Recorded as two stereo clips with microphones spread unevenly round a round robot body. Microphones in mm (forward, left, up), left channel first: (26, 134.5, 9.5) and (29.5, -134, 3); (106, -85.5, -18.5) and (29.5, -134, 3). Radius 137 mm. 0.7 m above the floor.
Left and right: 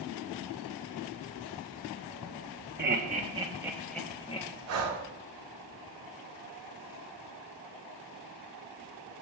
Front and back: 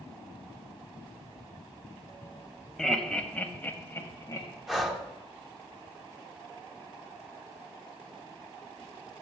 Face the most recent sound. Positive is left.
turn(degrees=-55)